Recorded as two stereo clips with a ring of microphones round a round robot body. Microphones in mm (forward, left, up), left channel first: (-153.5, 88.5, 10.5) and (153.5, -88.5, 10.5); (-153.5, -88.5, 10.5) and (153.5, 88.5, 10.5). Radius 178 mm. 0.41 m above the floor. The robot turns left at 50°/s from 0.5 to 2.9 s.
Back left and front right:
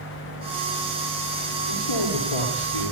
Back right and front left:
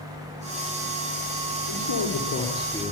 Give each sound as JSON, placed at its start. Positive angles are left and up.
{"t": 1.7, "sound": "a man speaking", "azimuth_deg": 180, "distance_m": 7.0}